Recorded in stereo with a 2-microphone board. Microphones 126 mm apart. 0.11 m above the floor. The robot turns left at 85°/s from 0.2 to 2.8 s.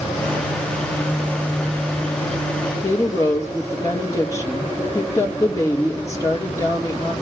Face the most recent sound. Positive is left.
turn(degrees=25)  # may be behind; listen again after turning